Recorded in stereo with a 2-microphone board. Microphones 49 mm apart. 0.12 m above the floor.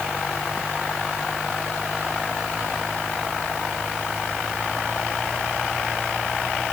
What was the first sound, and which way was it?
Only background noise.